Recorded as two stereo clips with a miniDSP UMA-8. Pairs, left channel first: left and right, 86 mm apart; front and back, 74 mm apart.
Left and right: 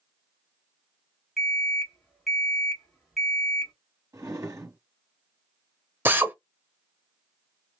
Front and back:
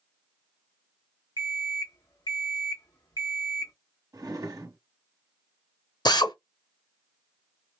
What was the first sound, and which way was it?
An alarm clock, straight ahead.